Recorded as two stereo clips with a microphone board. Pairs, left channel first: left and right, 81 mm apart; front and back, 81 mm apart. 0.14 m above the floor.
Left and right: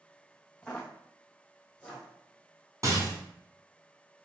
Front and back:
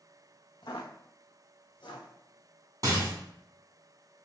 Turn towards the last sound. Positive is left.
turn(degrees=-135)